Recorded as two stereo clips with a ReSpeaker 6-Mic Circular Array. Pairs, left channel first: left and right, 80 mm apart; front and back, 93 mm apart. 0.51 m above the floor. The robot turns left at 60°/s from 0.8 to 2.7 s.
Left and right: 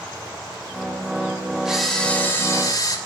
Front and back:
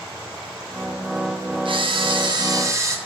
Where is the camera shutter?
170° right, 2.5 m; by 3.0 s 125° left, 2.5 m.